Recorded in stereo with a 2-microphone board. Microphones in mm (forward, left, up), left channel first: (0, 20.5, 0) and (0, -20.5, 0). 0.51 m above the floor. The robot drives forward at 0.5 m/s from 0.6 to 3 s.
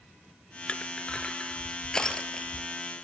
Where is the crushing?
25° left (ahead or behind), 1.5 m; by 2.7 s 15° left (ahead or behind), 2.5 m.